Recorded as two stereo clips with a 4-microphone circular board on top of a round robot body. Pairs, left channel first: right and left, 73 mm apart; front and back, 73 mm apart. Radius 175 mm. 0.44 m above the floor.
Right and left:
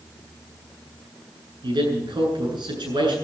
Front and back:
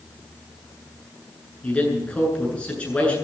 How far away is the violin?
I don't hear a violin.